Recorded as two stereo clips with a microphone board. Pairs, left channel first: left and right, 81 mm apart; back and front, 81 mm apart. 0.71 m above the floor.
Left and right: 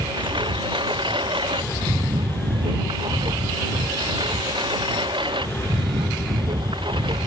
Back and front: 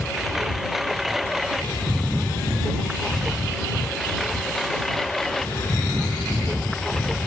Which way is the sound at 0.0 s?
85° right.